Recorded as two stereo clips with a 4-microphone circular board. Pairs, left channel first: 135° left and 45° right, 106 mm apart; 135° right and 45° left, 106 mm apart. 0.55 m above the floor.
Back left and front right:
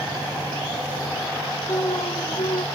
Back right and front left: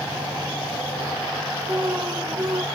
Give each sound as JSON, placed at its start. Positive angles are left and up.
{"t": 1.7, "sound": "an alarm", "azimuth_deg": 105}